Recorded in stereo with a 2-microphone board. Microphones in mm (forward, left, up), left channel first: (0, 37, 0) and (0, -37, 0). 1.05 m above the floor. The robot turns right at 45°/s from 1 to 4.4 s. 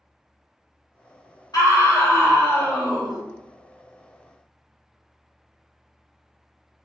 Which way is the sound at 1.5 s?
110° left.